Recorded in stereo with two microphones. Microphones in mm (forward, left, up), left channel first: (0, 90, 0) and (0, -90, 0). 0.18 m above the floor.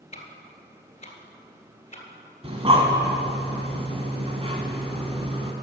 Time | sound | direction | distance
0.1 | ticking | 35° left (ahead or behind) | 1.5 m
2.4 | breathing | 30° right (ahead or behind) | 1.5 m